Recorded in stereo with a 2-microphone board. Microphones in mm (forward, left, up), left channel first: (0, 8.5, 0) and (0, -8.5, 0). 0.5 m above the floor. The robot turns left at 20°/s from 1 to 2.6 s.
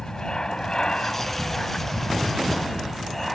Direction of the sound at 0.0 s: 45° left (ahead or behind).